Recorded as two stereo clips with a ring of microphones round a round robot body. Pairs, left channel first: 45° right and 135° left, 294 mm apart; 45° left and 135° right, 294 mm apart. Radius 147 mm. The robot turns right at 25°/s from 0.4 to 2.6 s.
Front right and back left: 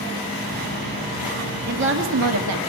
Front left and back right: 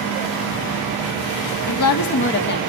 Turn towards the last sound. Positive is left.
turn(degrees=105)